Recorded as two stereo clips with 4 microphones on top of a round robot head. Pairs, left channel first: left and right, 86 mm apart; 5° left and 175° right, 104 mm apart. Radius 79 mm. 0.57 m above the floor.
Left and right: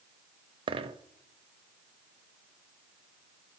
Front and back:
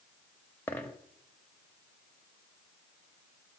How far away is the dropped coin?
About 0.6 m.